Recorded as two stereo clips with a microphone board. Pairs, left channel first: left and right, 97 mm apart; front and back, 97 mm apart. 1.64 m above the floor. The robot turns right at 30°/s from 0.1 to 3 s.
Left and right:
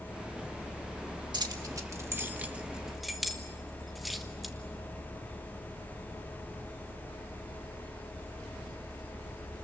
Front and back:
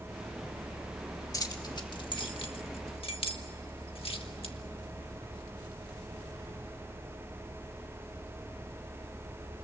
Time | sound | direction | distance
1.3 | keys jangling | 50° right | 1.8 m